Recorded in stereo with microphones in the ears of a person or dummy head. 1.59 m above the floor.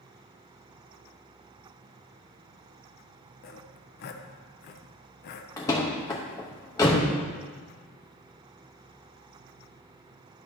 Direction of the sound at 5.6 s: 20° left (ahead or behind).